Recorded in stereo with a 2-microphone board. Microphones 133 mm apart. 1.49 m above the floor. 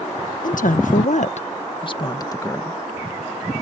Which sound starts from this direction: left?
A woman speaking, at 0.4 s.